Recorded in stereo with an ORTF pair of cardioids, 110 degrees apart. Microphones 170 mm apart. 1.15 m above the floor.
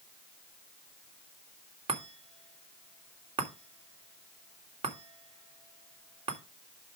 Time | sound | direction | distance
1.9 | a chime | 35° right | 3 m